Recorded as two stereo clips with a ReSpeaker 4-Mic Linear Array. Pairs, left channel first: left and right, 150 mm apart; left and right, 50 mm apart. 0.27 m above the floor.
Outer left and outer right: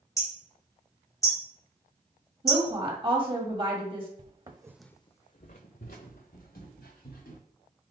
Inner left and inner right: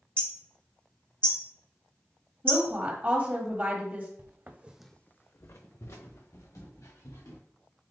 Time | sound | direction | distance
0.2 | hammering | 20° left (ahead or behind) | 1.2 m
2.4 | a woman speaking | 35° right (ahead or behind) | 1.2 m
4.2 | footsteps | 50° right (ahead or behind) | 0.9 m